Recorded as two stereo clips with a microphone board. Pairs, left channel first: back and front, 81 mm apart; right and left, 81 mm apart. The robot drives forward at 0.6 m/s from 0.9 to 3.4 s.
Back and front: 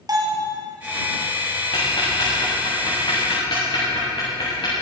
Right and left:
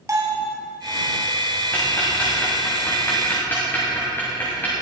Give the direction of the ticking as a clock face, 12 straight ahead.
5 o'clock.